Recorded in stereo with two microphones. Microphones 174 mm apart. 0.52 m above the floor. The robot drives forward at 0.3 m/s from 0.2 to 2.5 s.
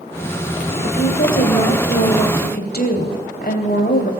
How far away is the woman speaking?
About 3.5 m.